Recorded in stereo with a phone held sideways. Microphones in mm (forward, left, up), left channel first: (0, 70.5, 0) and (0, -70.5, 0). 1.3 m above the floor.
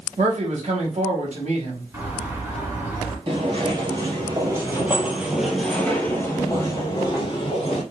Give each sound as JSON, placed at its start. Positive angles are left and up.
{"t": 0.2, "sound": "a man speaking", "side_deg": -55, "distance_m": 1.9}
{"t": 1.9, "sound": "a bird", "side_deg": -20, "distance_m": 2.0}
{"t": 3.3, "sound": "footsteps", "side_deg": -40, "distance_m": 1.7}